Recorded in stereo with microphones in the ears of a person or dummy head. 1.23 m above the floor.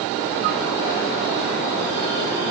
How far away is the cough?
No cough in this recording.